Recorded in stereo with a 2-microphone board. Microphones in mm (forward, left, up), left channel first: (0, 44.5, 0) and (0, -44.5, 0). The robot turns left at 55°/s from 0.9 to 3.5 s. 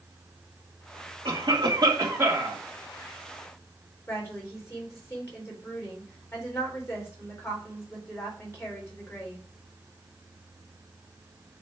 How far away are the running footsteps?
I don't hear running footsteps.